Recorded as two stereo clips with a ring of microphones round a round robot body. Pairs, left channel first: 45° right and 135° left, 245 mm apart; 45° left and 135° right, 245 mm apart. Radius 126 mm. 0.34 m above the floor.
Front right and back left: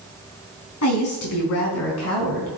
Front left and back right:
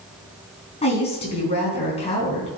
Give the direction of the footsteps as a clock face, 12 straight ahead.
No footsteps in this recording.